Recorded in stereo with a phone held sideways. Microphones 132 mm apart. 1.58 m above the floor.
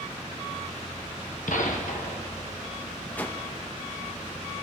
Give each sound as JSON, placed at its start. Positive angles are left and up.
{"t": 1.5, "sound": "a gunshot", "side_deg": 70, "distance_m": 1.2}
{"t": 3.2, "sound": "a whoosh", "side_deg": 15, "distance_m": 1.0}